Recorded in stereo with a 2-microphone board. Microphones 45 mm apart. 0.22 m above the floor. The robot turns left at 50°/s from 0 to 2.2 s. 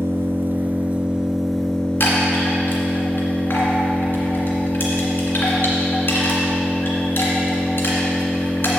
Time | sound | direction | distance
0.0 | an engine running | 105° right | 0.9 m
2.0 | a chime | 55° left (ahead or behind) | 2 m